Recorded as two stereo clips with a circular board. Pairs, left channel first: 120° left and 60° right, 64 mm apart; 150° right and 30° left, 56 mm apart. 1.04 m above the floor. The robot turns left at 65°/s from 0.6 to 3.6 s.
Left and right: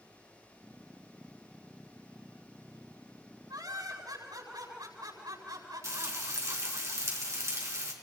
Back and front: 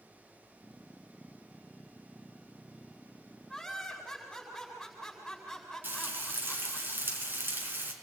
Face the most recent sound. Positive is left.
turn(degrees=-20)